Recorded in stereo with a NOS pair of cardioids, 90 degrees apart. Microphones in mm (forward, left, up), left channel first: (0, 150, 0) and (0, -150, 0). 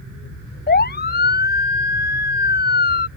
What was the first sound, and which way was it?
A siren, 35° left.